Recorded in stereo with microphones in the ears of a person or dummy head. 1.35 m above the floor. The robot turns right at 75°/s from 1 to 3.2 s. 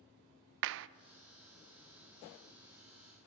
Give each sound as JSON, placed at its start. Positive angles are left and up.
{"t": 0.6, "sound": "a clap", "side_deg": -70, "distance_m": 0.5}